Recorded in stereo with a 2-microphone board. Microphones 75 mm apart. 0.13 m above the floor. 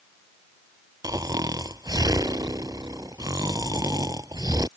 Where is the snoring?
55° right (ahead or behind).